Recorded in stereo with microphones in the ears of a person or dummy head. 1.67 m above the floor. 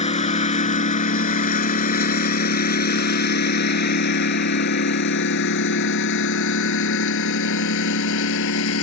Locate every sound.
0.0 s a lawn mower: 35° left (ahead or behind); by 8.8 s 75° left (ahead or behind)